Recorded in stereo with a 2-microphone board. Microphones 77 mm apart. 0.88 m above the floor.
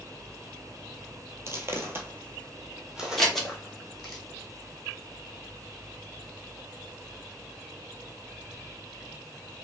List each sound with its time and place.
1.5 s footsteps: 35° right (ahead or behind), 1.0 m; by 4.2 s centre (ahead or behind), 1.9 m
3.2 s scissors: 5° left (ahead or behind), 1.1 m